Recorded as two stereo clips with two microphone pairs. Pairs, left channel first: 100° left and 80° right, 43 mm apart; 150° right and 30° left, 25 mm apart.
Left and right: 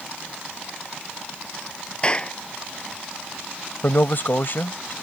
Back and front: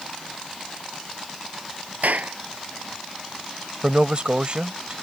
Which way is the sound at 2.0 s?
35° left.